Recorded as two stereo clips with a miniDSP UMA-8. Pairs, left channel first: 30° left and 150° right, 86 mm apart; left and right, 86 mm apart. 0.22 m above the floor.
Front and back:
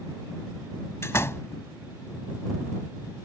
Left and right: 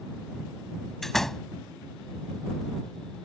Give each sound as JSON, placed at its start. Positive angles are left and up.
{"t": 1.0, "sound": "a door slam", "azimuth_deg": 5}